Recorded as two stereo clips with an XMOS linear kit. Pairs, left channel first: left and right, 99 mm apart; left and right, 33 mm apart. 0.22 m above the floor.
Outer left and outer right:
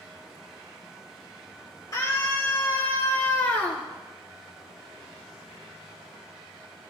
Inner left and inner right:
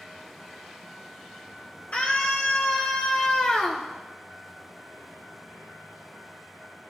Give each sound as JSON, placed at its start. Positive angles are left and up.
{"t": 1.9, "sound": "a scream", "side_deg": 45, "distance_m": 5.0}